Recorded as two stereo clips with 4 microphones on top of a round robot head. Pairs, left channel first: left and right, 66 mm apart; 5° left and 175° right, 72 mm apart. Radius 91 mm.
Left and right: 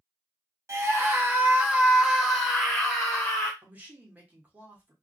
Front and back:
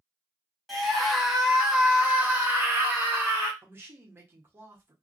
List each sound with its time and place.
0.7 s a scream: 80° right, 1.4 m; by 3.5 s 145° left, 1.5 m
3.6 s a man speaking: 140° right, 1.1 m